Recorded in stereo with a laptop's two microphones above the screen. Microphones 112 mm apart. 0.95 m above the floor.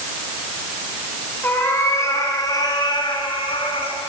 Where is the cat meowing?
20° left (ahead or behind), 4 m; by 4.0 s 65° left (ahead or behind), 3.5 m.